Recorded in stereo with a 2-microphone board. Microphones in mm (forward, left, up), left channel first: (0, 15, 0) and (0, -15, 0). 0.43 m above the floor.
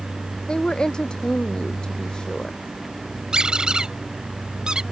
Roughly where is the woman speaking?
Left.